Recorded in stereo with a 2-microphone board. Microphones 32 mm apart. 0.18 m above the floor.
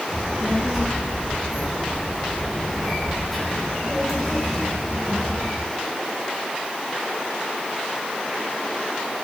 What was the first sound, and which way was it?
A child speaking, 5° right (ahead or behind).